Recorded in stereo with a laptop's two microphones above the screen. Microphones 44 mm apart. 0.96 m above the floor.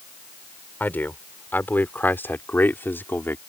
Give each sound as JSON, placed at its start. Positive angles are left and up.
{"t": 0.8, "sound": "a man speaking", "side_deg": 50}